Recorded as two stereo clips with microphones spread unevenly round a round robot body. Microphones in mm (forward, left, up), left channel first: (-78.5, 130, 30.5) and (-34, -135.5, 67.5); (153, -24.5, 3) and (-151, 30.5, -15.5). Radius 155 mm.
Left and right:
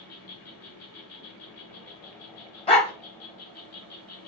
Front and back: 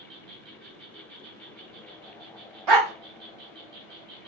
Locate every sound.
0.0 s an insect: 115° left, 1.1 m
2.7 s a dog barking: 170° left, 1.5 m